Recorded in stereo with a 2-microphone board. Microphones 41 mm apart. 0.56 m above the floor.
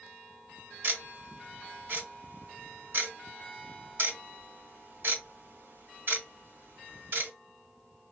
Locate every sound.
0.8 s ticking: 60° right (ahead or behind), 1.1 m